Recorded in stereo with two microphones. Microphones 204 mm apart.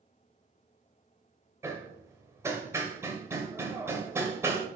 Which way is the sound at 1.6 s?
15° right (ahead or behind).